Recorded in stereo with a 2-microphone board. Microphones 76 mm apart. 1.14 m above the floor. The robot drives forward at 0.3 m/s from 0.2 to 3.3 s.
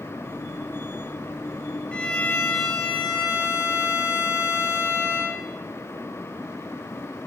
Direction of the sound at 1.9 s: 20° left (ahead or behind).